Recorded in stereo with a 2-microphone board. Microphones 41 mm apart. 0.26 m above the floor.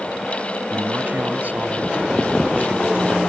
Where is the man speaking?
50° right (ahead or behind).